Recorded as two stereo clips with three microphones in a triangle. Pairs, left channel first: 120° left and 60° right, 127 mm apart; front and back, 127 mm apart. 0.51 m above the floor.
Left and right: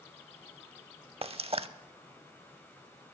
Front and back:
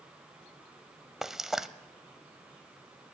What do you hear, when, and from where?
1.2 s frying: 95° right, 0.5 m